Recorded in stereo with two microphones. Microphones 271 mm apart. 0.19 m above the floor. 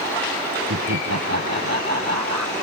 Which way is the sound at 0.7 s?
75° right (ahead or behind).